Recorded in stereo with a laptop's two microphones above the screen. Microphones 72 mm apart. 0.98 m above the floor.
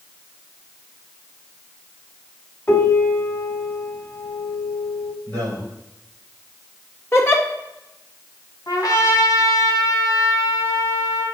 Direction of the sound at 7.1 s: 35° left (ahead or behind).